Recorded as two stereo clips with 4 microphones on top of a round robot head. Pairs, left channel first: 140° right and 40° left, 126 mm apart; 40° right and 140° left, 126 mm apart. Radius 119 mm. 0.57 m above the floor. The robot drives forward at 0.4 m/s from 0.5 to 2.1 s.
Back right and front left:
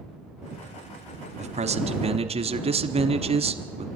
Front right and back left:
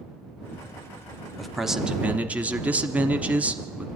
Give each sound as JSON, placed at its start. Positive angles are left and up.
{"t": 1.4, "sound": "a man speaking", "azimuth_deg": 50, "distance_m": 1.2}